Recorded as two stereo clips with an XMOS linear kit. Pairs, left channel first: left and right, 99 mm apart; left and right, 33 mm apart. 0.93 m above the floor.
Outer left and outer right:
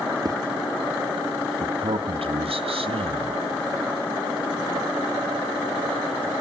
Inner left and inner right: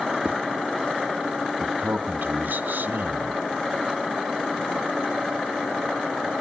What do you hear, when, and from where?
0.2 s a zipper: 40° right (ahead or behind), 1.0 m
1.6 s a man speaking: 75° right (ahead or behind), 1.4 m